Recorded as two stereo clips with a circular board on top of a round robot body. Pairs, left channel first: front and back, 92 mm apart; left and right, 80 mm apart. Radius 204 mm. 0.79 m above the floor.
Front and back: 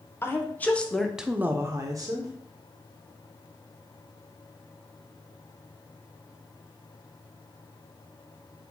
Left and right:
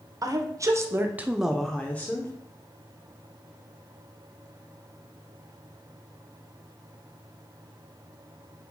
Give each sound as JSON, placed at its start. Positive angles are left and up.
{"t": 0.2, "sound": "a woman speaking", "azimuth_deg": -60, "distance_m": 0.9}